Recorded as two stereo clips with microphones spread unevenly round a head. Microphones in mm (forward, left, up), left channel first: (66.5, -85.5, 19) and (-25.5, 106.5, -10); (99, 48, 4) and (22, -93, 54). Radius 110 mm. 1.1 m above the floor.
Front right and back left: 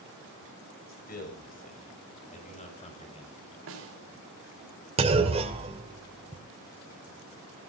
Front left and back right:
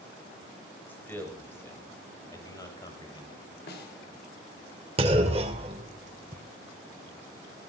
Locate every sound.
0.9 s a man speaking: 15° right, 7 m; by 3.5 s straight ahead, 6.5 m
3.7 s a snare drum: 95° left, 4 m
5.0 s a clunk: 175° right, 1.8 m